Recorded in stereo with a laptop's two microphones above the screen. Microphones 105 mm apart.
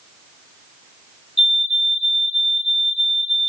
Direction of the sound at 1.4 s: 60° left (ahead or behind).